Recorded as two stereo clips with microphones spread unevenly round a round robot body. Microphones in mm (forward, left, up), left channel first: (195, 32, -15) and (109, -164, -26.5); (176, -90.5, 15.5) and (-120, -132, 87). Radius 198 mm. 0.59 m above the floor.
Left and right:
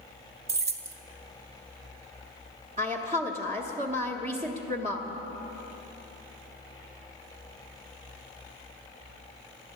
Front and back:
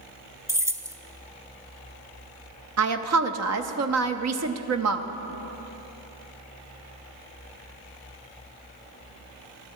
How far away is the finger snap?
I don't hear a finger snap.